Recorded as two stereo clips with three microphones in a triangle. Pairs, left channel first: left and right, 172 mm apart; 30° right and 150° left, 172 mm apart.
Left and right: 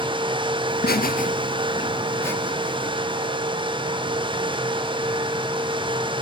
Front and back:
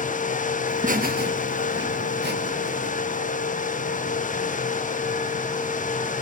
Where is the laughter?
100° left, 1.4 m; by 2.9 s 175° left, 2.5 m.